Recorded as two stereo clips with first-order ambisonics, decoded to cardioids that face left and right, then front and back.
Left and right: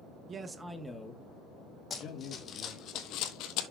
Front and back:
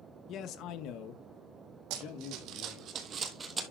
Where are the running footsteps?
160° left, 2 m; by 3.6 s 105° left, 1.6 m.